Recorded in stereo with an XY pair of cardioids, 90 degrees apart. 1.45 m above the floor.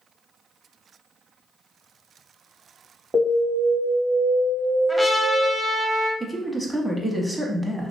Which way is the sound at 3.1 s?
25° right.